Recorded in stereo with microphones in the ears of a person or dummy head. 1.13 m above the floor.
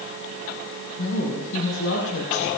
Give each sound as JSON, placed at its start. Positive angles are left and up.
{"t": 1.0, "sound": "a woman speaking", "side_deg": 60, "distance_m": 7.0}